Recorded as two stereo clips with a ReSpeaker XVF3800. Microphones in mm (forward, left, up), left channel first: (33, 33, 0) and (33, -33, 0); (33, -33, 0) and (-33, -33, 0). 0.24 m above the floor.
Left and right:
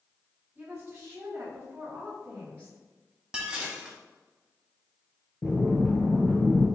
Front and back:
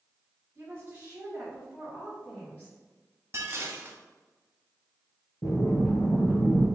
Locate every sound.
0.6 s a woman speaking: 145° right, 2.0 m; by 2.8 s 45° right, 1.8 m
3.3 s dishes clattering: 160° right, 0.9 m
5.4 s breathing: 30° left, 1.7 m